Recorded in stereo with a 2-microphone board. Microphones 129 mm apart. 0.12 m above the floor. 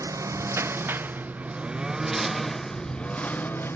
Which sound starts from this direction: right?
A lawn mower, at 0.0 s.